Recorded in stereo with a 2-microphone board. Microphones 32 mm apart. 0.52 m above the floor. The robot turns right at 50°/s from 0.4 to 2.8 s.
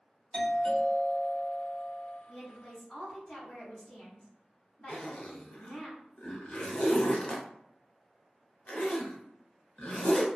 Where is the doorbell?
30° left (ahead or behind), 1.8 m; by 2.2 s centre (ahead or behind), 1.8 m.